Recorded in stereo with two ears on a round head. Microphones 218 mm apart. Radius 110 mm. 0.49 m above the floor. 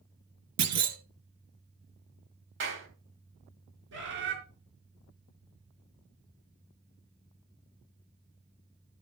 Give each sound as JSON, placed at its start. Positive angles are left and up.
{"t": 0.6, "sound": "a clunk", "side_deg": -80, "distance_m": 1.6}
{"t": 2.6, "sound": "a clap", "side_deg": -50, "distance_m": 3.0}
{"t": 3.9, "sound": "a bird", "side_deg": -50, "distance_m": 4.5}